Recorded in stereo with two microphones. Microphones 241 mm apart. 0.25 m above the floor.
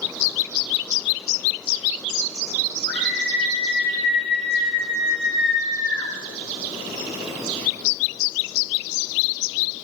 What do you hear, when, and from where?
2.9 s a scream: 45° right (ahead or behind), 7.5 m; by 6.1 s 55° right (ahead or behind), 6.5 m